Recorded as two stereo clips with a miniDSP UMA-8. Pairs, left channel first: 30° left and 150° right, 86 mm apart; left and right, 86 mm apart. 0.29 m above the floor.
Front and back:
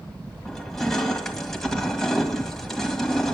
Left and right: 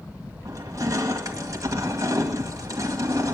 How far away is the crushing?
About 1.8 m.